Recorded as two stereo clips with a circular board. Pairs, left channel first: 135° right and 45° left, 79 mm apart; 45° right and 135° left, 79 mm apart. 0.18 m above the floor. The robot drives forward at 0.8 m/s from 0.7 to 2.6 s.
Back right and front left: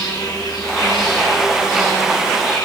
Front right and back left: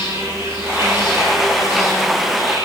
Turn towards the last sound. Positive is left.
turn(degrees=-170)